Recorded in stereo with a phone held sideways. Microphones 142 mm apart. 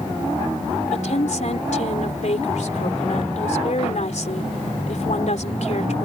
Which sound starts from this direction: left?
A woman speaking, at 0.9 s.